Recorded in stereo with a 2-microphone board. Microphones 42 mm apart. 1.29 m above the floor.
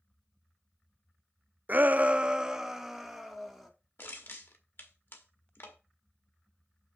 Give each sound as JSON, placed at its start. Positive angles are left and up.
{"t": 1.7, "sound": "a shout", "side_deg": -45, "distance_m": 0.5}
{"t": 4.0, "sound": "crushing", "side_deg": 65, "distance_m": 1.7}